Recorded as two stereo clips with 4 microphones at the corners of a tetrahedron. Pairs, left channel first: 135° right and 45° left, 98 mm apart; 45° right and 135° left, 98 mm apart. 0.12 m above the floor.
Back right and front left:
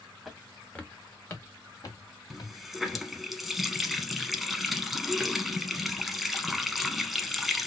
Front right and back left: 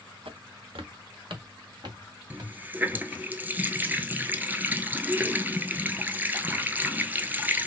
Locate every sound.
0.2 s footsteps: 135° left, 1.7 m; by 3.1 s 170° right, 3 m
2.3 s a running tap: 130° left, 0.8 m